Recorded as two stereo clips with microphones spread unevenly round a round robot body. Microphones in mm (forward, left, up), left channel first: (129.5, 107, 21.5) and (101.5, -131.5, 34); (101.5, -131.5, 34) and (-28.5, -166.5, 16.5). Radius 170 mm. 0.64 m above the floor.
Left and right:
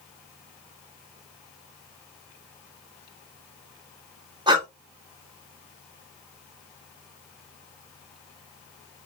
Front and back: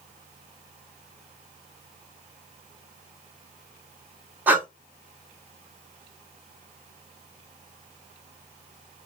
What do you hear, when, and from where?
4.5 s breathing: 145° right, 0.9 m